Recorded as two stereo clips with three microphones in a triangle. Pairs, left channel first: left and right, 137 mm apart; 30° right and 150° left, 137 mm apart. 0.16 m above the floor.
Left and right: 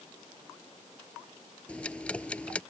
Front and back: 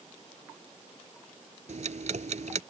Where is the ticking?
170° left.